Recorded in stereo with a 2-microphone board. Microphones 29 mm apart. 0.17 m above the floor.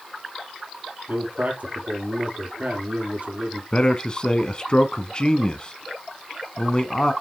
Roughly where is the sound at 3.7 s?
Left.